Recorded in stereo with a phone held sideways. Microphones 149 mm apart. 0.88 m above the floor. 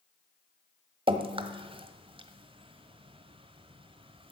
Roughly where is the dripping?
Right.